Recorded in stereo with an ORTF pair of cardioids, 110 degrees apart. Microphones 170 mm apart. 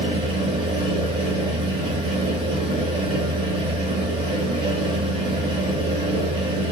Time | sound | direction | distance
0.0 | a fan | 35° right | 1.2 m